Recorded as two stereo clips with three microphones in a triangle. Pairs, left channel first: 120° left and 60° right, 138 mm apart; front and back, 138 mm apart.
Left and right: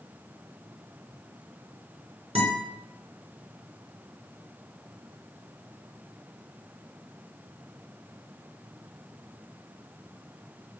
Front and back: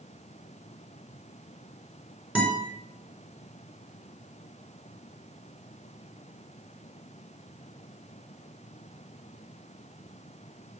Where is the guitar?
100° right, 4 m.